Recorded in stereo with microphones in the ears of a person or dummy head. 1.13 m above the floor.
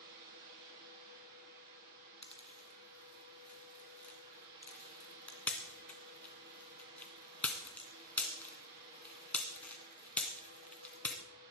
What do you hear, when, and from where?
0.0 s a fan: 55° right (ahead or behind), 8 m
2.2 s a pop: 5° left (ahead or behind), 2 m